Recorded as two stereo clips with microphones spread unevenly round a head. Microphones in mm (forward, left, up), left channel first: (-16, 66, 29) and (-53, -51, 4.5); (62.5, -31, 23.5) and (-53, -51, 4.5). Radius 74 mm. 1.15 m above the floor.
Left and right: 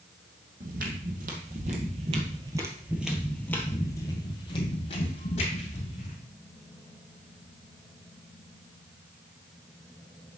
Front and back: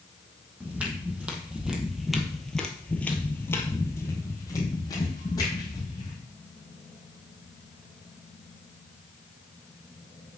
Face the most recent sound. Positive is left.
turn(degrees=65)